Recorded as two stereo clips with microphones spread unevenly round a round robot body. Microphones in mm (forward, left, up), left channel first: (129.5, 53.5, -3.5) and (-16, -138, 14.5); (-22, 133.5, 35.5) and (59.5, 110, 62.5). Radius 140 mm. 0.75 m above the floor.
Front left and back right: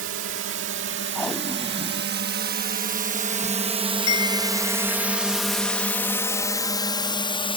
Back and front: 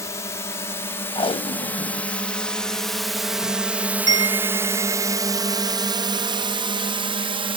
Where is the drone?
165° right; by 7.6 s 5° right.